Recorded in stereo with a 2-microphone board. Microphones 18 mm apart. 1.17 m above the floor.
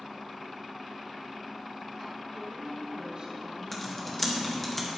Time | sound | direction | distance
2.3 | a woman speaking | 75° right (ahead or behind) | 3 m
3.7 | typing on a keyboard | 10° left (ahead or behind) | 1.6 m